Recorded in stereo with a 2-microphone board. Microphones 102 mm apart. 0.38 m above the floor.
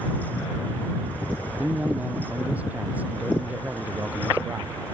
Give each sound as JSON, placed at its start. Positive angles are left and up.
{"t": 1.6, "sound": "a man speaking", "side_deg": -15}